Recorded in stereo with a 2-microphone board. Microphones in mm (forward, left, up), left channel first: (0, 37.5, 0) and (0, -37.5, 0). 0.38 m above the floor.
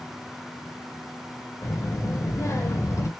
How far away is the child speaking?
About 0.9 m.